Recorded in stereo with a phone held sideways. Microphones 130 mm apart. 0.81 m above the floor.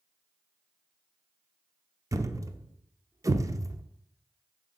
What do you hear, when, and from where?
2.1 s a thud: 25° right (ahead or behind), 0.5 m